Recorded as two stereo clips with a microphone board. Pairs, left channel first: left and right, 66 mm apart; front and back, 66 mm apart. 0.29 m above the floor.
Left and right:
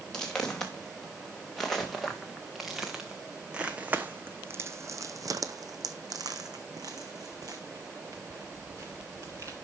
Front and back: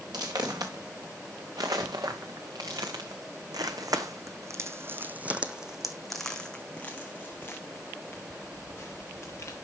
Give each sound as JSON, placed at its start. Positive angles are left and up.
{"t": 0.1, "sound": "footsteps", "azimuth_deg": 170, "distance_m": 2.5}